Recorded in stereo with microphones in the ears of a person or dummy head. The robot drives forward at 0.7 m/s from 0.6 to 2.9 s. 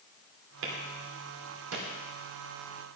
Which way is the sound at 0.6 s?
75° right (ahead or behind).